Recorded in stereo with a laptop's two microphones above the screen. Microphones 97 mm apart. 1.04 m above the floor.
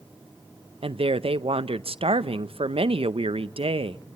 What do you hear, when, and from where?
0.8 s a woman speaking: 75° right (ahead or behind), 0.6 m